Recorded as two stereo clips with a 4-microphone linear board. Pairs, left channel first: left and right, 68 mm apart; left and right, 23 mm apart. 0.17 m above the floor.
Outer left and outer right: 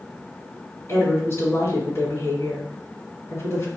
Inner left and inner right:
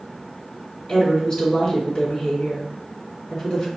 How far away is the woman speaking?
About 1.9 m.